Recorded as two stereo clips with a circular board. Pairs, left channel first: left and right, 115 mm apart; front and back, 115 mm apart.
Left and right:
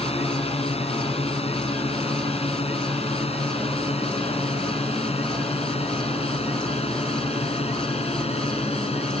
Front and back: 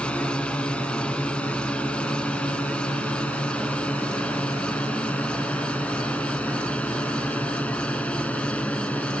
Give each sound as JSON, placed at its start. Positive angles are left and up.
{"t": 0.0, "sound": "a drone", "azimuth_deg": 80}